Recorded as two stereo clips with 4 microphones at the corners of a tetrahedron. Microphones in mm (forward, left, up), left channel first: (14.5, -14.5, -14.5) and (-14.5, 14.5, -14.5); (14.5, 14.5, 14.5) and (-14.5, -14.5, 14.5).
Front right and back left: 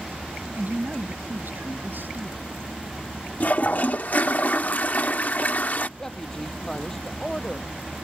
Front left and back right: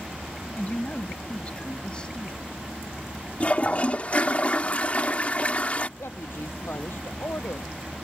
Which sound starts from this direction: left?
A woman speaking, at 0.6 s.